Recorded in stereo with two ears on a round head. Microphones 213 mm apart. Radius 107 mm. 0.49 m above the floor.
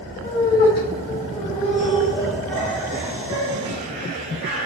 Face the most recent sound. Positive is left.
turn(degrees=-45)  # may be behind; listen again after turning